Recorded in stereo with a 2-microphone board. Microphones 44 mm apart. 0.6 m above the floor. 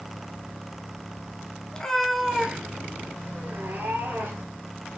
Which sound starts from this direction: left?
A cat meowing, at 1.7 s.